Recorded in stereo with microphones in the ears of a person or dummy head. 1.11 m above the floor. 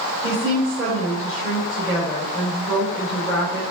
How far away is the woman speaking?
About 3 m.